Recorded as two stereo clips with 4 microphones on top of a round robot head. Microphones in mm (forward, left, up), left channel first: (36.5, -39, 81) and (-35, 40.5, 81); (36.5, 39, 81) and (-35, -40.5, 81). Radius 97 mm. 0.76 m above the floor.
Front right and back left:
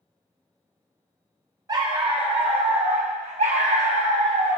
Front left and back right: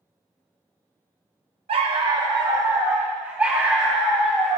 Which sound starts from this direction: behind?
A dog barking, at 1.7 s.